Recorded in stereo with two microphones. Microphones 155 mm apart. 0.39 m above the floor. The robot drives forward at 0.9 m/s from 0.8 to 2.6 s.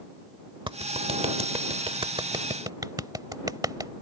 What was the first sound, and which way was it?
A clap, 30° right (ahead or behind).